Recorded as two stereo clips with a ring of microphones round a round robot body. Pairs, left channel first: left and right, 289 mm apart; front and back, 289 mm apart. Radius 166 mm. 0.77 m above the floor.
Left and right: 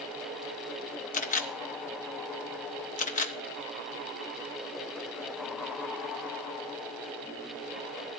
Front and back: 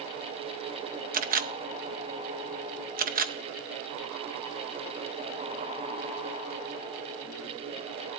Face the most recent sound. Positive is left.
turn(degrees=140)